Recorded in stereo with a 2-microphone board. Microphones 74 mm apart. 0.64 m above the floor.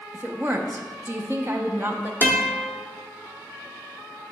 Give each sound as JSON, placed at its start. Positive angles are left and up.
{"t": 0.1, "sound": "a woman speaking", "side_deg": -30, "distance_m": 0.9}
{"t": 2.2, "sound": "a guitar", "side_deg": -25, "distance_m": 1.1}